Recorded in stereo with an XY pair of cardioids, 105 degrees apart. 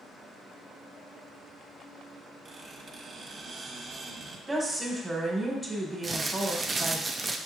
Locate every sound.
2.5 s a squeak: 45° right, 1.2 m
4.5 s a woman speaking: 15° right, 1.5 m
6.0 s crumpling: 25° right, 0.5 m